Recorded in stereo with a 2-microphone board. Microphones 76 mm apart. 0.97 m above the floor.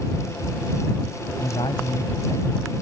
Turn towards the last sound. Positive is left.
turn(degrees=75)  # may be behind; listen again after turning